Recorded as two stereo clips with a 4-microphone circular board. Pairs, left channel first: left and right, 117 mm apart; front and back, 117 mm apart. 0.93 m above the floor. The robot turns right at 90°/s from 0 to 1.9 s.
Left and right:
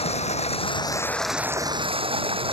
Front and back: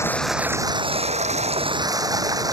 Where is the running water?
65° left; by 2.5 s 125° right.